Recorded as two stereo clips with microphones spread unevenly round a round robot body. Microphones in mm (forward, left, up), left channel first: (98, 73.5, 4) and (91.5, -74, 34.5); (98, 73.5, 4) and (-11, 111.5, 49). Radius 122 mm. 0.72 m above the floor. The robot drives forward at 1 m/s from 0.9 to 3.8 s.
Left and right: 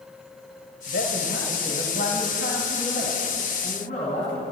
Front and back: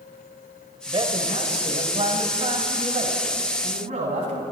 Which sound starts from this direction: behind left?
A man speaking, at 0.9 s.